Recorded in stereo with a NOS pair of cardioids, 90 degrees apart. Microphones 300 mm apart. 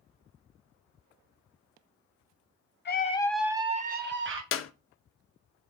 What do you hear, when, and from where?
2.9 s a scream: 35° left, 0.8 m; by 4.4 s 40° right, 1.5 m
4.5 s a clap: 45° left, 0.5 m